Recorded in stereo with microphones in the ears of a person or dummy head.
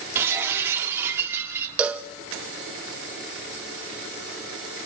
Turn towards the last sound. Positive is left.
turn(degrees=-10)  # may be behind; listen again after turning